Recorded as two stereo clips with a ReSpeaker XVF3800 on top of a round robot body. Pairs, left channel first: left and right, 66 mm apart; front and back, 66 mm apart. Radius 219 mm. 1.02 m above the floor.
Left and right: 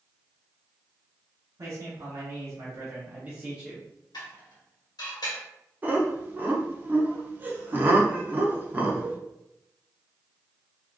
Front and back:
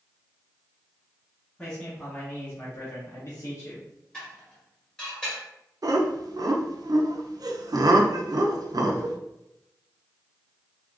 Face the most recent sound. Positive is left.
turn(degrees=-150)